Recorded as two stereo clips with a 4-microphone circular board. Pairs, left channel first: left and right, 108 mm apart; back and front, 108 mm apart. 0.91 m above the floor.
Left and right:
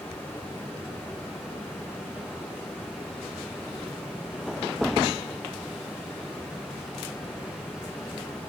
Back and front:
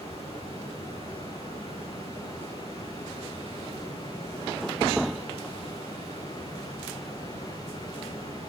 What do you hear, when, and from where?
0.0 s running water: 160° left, 8.5 m